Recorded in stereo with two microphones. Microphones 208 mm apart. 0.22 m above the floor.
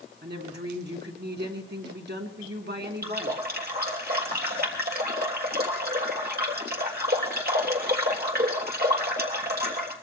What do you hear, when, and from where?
0.2 s a woman speaking: 55° right (ahead or behind), 2.5 m
3.0 s a running tap: 50° right (ahead or behind), 3 m